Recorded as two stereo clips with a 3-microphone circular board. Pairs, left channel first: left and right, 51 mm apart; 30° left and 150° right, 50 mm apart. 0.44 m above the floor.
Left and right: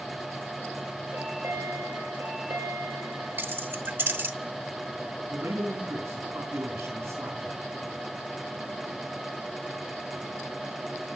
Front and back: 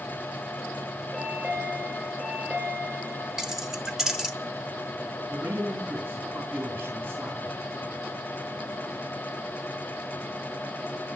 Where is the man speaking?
105° right, 3 m.